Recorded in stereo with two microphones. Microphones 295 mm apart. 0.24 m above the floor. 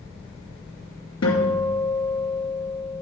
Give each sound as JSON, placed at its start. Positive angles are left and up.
{"t": 1.2, "sound": "a guitar", "side_deg": 60, "distance_m": 3.0}